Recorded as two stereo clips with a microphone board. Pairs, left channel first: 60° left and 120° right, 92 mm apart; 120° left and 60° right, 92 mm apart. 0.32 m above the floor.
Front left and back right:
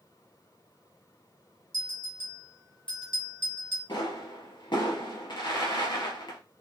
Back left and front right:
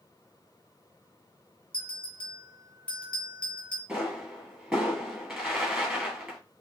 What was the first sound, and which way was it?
A bell, 45° left.